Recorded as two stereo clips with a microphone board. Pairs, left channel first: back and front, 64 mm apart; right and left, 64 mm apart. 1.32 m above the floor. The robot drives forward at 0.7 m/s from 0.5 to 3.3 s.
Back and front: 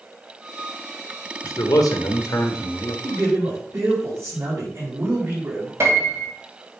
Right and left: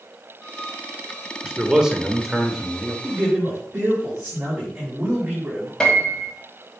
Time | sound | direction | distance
1.4 | a man speaking | 170° left | 0.9 m
3.0 | a man speaking | 35° left | 4 m
5.8 | a piano | 15° right | 1.6 m